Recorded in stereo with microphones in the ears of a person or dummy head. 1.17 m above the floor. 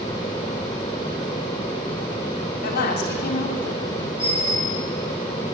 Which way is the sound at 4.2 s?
20° left (ahead or behind).